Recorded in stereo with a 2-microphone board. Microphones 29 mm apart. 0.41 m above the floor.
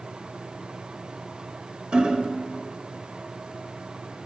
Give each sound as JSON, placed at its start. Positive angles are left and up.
{"t": 1.9, "sound": "hammering", "side_deg": -30, "distance_m": 0.6}